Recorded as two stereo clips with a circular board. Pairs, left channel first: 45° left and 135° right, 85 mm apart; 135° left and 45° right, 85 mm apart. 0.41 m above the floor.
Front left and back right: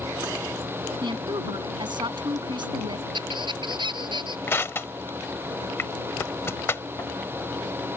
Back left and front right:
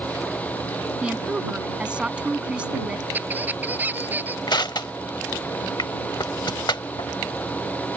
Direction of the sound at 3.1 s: 115° right.